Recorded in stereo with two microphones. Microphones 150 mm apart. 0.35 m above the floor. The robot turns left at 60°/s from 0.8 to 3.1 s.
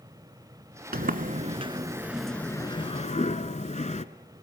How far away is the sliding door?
About 0.7 m.